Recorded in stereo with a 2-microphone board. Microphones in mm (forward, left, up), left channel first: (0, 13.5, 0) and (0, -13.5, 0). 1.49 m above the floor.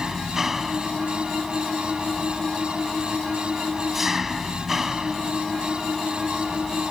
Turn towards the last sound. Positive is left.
turn(degrees=-10)  # may be behind; listen again after turning